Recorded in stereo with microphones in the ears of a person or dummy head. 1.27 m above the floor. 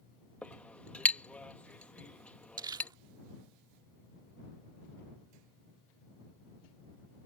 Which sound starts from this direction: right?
Crumpling, at 2.6 s.